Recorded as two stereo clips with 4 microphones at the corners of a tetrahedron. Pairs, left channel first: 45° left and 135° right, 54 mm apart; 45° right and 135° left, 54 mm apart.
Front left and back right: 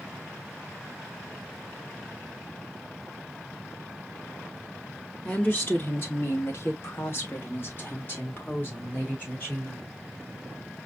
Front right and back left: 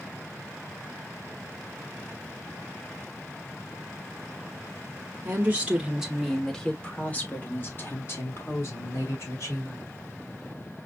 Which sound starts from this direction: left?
A woman speaking, at 5.2 s.